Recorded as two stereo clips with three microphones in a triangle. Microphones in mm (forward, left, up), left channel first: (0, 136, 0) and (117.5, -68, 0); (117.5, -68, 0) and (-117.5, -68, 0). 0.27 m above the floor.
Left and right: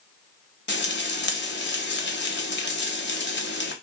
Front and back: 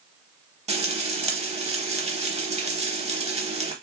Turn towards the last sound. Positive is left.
turn(degrees=130)